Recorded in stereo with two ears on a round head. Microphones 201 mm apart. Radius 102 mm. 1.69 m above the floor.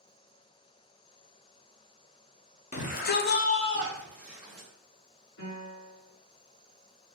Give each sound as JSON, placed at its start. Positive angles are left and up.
{"t": 2.7, "sound": "a shout", "side_deg": 35, "distance_m": 0.9}
{"t": 5.4, "sound": "a piano", "side_deg": 60, "distance_m": 1.9}